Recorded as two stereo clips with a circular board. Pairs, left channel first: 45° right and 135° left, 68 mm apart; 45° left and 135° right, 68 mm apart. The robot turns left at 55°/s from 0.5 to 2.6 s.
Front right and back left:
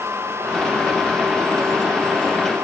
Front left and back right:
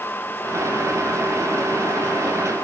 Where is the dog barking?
No dog barking in this recording.